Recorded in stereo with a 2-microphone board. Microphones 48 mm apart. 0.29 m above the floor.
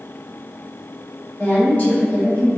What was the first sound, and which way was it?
A woman speaking, 30° left (ahead or behind).